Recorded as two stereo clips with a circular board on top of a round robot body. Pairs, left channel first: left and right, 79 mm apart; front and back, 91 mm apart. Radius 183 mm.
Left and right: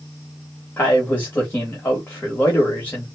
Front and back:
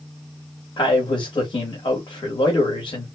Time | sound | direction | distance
0.8 | a man speaking | 25° left | 1.6 m